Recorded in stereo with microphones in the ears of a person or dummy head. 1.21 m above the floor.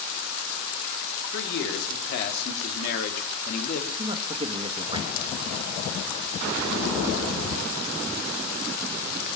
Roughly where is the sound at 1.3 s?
Left.